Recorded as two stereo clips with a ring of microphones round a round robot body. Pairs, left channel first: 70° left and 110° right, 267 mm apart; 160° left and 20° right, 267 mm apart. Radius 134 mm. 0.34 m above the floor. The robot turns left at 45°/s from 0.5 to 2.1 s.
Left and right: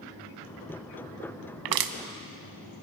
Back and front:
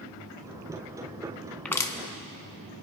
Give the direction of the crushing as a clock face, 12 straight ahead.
4 o'clock.